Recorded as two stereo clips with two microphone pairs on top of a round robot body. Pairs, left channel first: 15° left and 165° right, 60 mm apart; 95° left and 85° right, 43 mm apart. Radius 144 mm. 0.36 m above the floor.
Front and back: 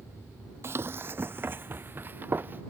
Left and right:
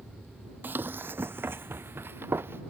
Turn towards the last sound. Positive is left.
turn(degrees=-115)